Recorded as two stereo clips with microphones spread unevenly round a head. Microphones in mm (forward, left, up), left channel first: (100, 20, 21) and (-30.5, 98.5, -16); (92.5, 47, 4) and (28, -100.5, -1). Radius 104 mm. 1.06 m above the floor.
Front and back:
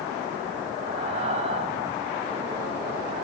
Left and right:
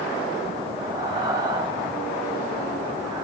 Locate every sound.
0.8 s breathing: 175° left, 0.8 m